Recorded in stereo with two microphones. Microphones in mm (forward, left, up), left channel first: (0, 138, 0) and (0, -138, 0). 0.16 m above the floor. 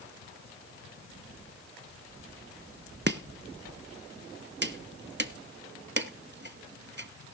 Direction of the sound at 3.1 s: 40° right (ahead or behind).